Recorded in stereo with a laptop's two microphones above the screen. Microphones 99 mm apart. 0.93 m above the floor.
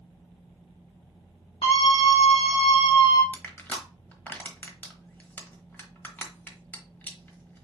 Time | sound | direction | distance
1.6 | a scream | 60° left (ahead or behind) | 1.8 m
3.3 | crushing | 20° left (ahead or behind) | 1.1 m